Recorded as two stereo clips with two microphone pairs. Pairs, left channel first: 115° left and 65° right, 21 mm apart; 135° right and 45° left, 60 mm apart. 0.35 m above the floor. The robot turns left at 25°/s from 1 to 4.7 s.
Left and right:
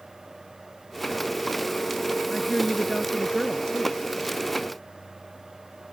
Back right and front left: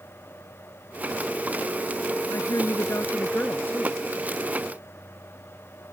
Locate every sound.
2.3 s a woman speaking: 155° right; by 4.0 s 160° left